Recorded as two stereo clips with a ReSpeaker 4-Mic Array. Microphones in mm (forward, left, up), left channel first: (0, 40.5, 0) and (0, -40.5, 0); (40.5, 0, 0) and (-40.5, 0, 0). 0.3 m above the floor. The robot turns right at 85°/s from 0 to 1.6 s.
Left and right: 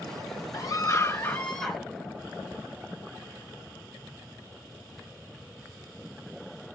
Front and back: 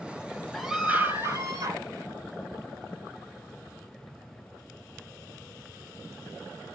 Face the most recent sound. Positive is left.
turn(degrees=175)